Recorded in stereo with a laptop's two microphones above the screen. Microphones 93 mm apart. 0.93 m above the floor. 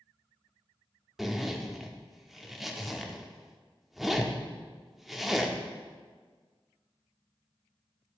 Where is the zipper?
Centre (ahead or behind), 0.6 m.